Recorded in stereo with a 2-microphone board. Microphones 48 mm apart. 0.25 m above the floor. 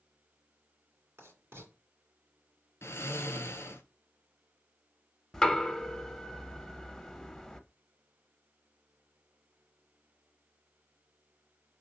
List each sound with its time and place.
1.2 s writing: 55° right (ahead or behind), 2.5 m
2.8 s snoring: 60° left (ahead or behind), 1.0 m
5.3 s knocking: 10° left (ahead or behind), 0.6 m